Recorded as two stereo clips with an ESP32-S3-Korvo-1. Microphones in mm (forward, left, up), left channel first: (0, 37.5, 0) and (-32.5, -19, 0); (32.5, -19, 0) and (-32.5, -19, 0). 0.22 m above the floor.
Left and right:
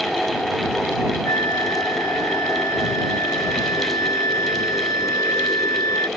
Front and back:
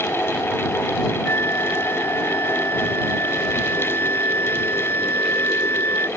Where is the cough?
I don't hear a cough.